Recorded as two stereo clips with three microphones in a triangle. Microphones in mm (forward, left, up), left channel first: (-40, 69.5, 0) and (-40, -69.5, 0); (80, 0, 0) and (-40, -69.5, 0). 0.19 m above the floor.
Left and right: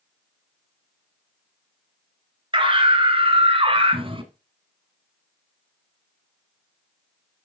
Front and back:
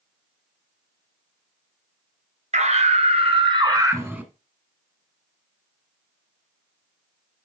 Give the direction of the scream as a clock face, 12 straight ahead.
5 o'clock.